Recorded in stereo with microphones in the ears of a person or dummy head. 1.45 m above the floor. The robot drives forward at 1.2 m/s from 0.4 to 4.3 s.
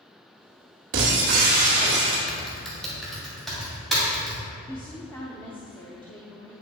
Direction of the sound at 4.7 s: 10° left (ahead or behind).